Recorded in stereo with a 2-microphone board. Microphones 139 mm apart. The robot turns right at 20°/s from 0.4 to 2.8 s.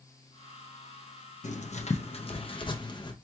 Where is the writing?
60° left (ahead or behind), 0.5 m; by 3.1 s 35° left (ahead or behind), 0.5 m.